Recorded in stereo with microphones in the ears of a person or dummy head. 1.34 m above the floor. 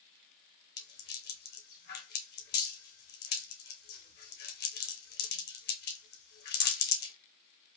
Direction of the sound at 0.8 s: 50° left (ahead or behind).